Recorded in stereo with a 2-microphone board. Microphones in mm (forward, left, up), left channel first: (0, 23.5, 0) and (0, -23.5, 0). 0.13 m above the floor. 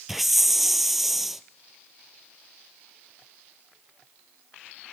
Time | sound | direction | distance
0.1 | a hiss | 5° right (ahead or behind) | 0.6 m